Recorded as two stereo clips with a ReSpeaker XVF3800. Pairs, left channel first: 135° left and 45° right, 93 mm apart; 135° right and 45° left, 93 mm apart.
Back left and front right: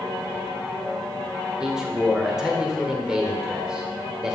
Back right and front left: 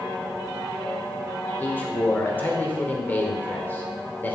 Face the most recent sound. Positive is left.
turn(degrees=-120)